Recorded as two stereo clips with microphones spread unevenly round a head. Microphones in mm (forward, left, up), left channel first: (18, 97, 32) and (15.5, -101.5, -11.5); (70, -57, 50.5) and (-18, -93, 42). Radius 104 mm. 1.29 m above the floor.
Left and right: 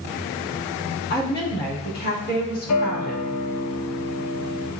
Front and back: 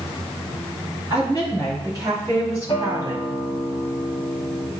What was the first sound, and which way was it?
A woman speaking, 135° left.